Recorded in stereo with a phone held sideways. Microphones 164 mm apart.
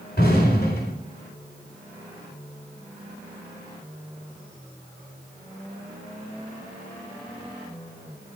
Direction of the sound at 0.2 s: 75° left (ahead or behind).